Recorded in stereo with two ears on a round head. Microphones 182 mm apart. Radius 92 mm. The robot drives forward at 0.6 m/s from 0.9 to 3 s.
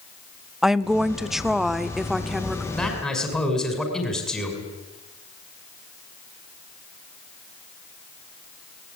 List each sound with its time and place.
0.6 s a woman speaking: centre (ahead or behind), 0.7 m
2.7 s a man speaking: centre (ahead or behind), 6 m